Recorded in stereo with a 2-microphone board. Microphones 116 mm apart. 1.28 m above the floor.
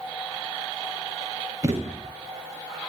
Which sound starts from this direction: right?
A thud, at 1.6 s.